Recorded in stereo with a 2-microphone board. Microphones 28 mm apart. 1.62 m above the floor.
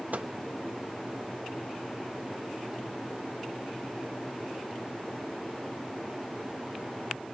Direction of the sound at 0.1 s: 65° right (ahead or behind).